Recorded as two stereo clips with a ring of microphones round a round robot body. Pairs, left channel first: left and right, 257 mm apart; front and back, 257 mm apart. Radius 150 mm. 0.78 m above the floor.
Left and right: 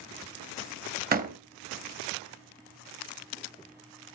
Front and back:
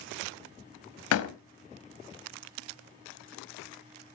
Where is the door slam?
35° right, 0.9 m.